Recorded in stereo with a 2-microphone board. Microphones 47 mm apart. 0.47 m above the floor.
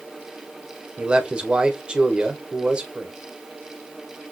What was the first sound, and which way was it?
A man speaking, 20° right (ahead or behind).